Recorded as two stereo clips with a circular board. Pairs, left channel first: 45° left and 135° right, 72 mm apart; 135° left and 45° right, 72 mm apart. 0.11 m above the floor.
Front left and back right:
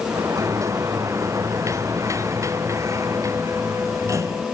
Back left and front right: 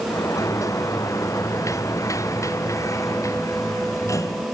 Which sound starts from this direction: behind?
A sliding door, at 0.1 s.